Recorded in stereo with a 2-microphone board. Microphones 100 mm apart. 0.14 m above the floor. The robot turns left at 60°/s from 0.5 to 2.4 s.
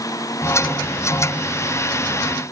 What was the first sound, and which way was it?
Only background noise.